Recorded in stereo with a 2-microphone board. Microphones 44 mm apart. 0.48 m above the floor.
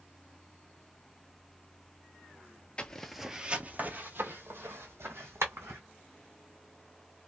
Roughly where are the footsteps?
Left.